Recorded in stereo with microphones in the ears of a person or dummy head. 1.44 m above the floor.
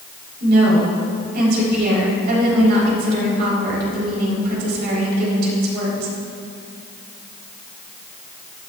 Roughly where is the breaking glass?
I don't hear breaking glass.